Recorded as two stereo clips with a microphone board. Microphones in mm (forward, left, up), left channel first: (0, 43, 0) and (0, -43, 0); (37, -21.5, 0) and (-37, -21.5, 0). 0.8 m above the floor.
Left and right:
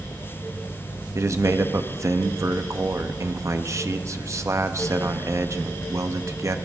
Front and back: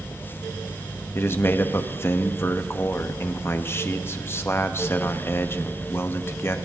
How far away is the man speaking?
About 0.7 m.